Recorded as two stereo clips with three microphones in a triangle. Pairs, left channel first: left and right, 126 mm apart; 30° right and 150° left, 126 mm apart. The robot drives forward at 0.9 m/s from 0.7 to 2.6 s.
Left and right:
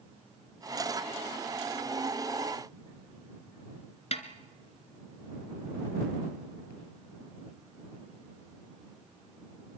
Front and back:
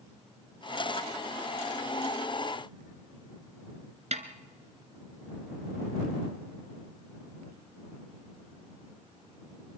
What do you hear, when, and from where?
4.1 s a snare drum: 125° left, 2 m